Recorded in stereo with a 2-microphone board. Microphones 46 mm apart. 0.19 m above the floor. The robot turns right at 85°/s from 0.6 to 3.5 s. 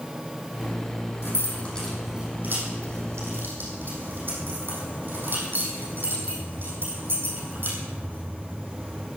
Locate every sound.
1.2 s keys jangling: 60° left (ahead or behind), 6.5 m; by 9.1 s 50° right (ahead or behind), 6.5 m